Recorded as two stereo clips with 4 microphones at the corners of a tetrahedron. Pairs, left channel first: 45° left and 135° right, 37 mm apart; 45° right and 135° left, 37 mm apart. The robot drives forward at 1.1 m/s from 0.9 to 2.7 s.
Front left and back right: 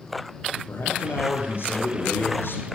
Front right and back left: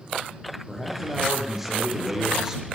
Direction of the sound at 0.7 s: 45° left.